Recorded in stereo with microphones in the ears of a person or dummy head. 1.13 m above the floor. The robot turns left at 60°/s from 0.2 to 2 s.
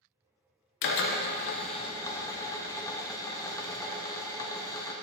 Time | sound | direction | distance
0.8 | a drill | 95° left | 0.8 m